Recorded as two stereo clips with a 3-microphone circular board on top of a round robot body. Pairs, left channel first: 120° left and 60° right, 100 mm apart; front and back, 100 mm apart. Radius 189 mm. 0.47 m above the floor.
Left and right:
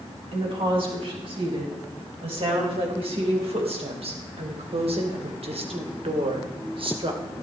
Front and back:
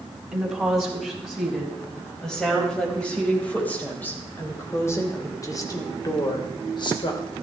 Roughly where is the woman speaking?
Right.